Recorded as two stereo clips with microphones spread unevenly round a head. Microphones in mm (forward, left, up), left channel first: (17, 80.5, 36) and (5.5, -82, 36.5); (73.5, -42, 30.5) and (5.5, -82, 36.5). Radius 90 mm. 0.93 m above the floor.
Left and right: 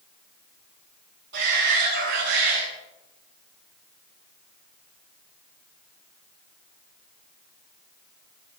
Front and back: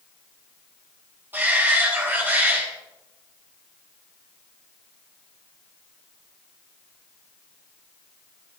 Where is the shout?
85° right, 9.5 m.